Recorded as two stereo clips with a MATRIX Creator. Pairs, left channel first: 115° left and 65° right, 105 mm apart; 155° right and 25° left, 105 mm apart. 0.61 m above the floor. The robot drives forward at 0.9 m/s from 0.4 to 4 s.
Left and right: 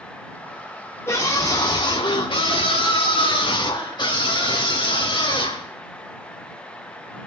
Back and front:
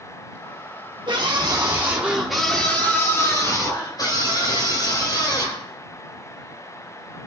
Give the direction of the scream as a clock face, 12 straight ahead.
10 o'clock.